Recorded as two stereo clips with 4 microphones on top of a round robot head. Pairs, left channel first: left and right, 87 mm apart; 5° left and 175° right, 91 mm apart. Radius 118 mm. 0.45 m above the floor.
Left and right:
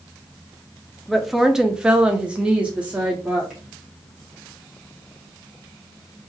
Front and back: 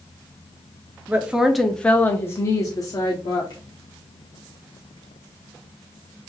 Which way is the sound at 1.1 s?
175° right.